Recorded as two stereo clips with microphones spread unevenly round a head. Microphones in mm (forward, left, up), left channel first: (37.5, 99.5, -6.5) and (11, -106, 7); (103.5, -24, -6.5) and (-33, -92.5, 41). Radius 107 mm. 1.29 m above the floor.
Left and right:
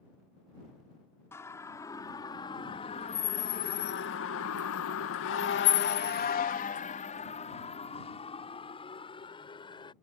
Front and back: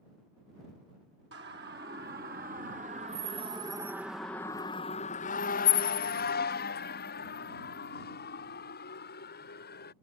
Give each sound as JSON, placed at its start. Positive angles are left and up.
{"t": 1.3, "sound": "a siren", "azimuth_deg": 160}